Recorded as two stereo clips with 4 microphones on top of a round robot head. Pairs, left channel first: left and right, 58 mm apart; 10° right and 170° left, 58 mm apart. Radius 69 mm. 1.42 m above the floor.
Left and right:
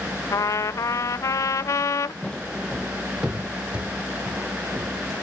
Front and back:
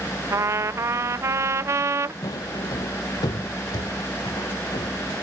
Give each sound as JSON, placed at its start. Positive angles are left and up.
{"t": 0.3, "sound": "a trumpet", "azimuth_deg": 130}
{"t": 2.2, "sound": "footsteps", "azimuth_deg": 15}